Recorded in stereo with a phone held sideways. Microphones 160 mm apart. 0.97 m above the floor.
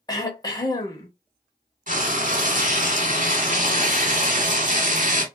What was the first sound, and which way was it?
Throat clearing, 25° left (ahead or behind).